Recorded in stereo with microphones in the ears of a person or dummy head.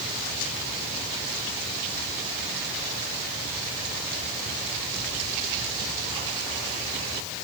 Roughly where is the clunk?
I don't hear a clunk.